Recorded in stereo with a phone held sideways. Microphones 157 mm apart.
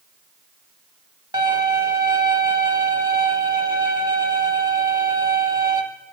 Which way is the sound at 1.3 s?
30° right (ahead or behind).